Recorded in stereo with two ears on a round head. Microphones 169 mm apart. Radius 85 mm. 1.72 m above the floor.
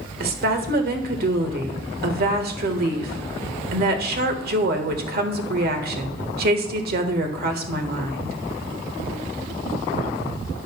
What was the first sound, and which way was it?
A woman speaking, 55° right (ahead or behind).